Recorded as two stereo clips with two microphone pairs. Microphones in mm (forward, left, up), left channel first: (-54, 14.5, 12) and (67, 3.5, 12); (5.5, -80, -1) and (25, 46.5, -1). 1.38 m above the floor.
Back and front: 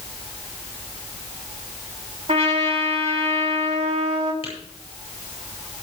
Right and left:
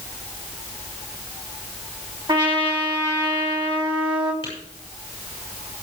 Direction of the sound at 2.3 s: 30° left.